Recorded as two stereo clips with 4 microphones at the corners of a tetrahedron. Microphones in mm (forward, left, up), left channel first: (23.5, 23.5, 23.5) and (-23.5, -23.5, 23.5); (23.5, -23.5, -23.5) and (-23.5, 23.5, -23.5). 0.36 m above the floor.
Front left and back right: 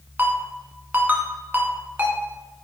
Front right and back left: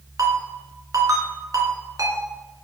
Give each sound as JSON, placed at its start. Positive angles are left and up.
{"t": 0.2, "sound": "a ringtone", "azimuth_deg": 165, "distance_m": 1.7}